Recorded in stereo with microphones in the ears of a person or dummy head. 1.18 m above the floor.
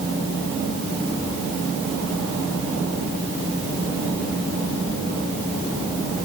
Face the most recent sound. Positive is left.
No sound to turn to.